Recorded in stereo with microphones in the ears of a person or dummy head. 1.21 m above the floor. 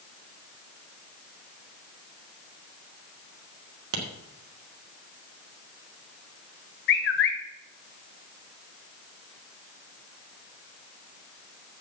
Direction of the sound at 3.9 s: 85° right.